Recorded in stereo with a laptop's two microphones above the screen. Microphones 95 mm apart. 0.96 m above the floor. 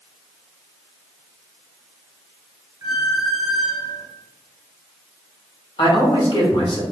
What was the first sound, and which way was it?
A squeak, 35° right (ahead or behind).